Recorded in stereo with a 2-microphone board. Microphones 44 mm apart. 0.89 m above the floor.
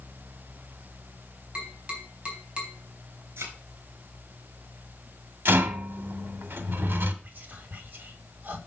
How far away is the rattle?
About 1.4 m.